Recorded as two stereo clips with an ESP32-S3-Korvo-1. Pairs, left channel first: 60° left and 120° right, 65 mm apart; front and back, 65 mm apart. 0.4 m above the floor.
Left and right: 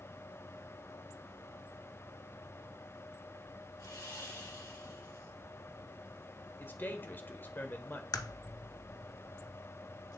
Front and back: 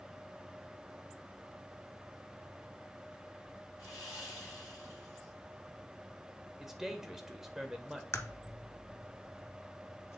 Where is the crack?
45° left, 0.6 m.